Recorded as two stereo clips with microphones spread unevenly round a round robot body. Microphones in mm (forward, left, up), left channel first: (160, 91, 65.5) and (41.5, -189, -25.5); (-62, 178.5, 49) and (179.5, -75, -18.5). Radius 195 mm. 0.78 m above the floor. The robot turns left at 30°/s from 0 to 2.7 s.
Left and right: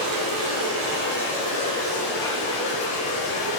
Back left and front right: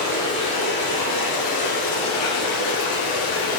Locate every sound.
0.0 s running water: 135° right, 2.5 m; by 3.6 s 145° left, 2.5 m